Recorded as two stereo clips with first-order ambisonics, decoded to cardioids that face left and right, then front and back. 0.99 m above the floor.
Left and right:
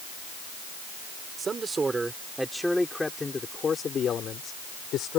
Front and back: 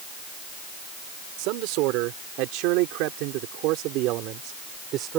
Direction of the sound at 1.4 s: 160° right.